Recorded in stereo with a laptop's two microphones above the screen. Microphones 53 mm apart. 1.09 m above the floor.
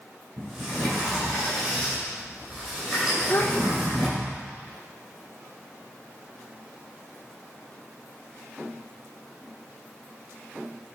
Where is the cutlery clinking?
I don't hear cutlery clinking.